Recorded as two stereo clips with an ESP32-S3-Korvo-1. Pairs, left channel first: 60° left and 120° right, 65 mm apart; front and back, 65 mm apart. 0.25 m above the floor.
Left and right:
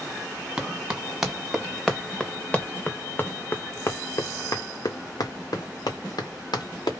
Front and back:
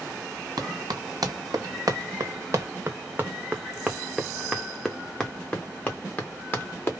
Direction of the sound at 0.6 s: 165° left.